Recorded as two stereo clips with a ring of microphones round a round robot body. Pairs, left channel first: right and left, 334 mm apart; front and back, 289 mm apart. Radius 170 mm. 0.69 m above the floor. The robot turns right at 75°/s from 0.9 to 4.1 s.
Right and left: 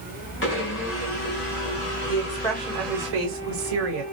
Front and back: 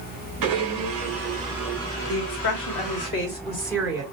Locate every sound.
0.4 s a blender: 145° right, 1.6 m; by 3.1 s 15° left, 1.6 m
2.1 s a woman speaking: 40° right, 2.5 m; by 4.0 s 105° left, 2.5 m